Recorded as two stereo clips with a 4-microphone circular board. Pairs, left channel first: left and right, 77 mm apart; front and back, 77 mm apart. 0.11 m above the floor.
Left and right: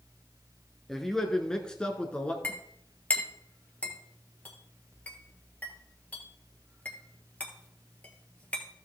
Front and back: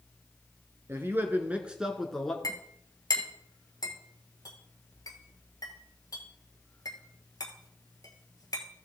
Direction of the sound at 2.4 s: 25° left.